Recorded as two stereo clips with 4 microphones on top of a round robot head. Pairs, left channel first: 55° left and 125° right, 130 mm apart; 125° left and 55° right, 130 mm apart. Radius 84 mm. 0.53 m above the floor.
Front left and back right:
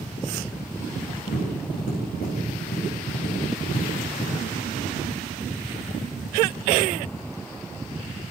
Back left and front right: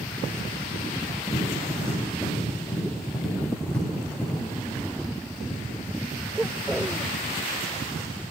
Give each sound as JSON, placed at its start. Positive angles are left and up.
{"t": 1.3, "sound": "tapping", "azimuth_deg": 45, "distance_m": 8.5}